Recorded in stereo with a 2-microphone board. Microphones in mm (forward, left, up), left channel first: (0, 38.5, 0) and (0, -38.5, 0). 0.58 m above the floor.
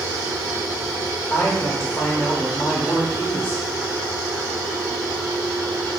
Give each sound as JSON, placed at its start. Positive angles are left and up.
{"t": 1.3, "sound": "a man speaking", "side_deg": 20, "distance_m": 0.8}